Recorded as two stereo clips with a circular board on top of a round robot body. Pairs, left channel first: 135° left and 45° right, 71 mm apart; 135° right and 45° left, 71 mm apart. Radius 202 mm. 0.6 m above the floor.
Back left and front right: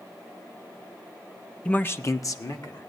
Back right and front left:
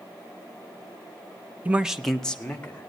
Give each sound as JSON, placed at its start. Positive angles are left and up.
{"t": 1.6, "sound": "a man speaking", "azimuth_deg": 80, "distance_m": 0.8}